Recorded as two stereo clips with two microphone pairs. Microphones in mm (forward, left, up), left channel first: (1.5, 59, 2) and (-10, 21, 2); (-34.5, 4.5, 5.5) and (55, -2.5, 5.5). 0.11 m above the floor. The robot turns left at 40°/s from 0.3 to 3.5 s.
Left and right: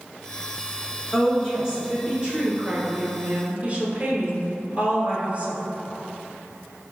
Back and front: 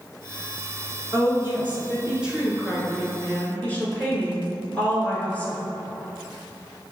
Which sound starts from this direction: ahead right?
A woman speaking, at 1.1 s.